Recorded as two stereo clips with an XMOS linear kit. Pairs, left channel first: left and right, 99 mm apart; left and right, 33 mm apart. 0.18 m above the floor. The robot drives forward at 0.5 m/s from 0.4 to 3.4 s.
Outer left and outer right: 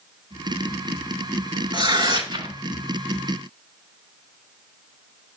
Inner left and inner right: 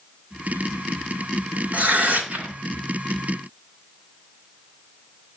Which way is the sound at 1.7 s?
45° right (ahead or behind).